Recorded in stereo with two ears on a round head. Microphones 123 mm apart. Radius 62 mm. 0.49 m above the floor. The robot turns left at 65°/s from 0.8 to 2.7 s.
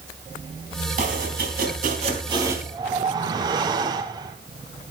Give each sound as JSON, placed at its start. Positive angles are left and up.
{"t": 1.0, "sound": "chopping", "azimuth_deg": -60, "distance_m": 3.5}
{"t": 2.7, "sound": "a whoosh", "side_deg": -35, "distance_m": 1.4}